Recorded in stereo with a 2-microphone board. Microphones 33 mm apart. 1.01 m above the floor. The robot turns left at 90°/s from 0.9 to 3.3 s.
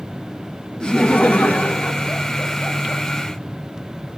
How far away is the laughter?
About 0.7 m.